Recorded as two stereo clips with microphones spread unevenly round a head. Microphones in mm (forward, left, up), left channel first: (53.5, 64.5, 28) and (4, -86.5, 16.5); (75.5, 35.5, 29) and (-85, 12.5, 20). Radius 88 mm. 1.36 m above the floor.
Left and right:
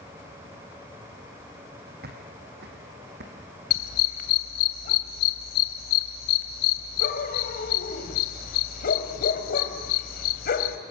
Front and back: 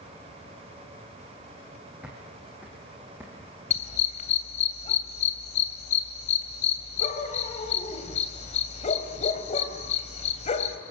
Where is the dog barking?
55° left, 2.5 m.